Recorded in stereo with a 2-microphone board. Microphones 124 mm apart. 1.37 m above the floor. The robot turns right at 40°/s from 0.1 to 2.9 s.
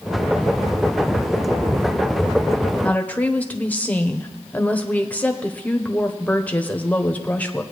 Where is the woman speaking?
10° left (ahead or behind), 1.0 m.